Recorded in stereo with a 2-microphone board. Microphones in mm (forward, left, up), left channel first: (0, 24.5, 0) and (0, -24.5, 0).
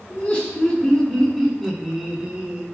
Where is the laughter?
30° left (ahead or behind), 1.4 m; by 2.6 s 20° right (ahead or behind), 1.3 m.